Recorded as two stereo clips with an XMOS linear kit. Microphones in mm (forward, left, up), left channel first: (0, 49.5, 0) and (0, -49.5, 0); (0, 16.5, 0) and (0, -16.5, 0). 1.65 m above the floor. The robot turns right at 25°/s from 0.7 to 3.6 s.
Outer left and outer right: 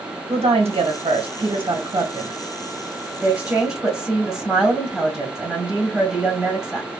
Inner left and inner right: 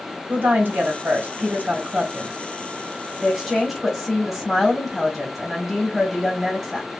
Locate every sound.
0.3 s a woman speaking: 80° right, 1.8 m; by 6.9 s 5° right, 1.8 m